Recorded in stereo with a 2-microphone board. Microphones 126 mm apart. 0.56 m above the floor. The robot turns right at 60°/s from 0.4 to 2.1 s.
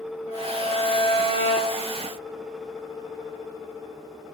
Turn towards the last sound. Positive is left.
turn(degrees=-160)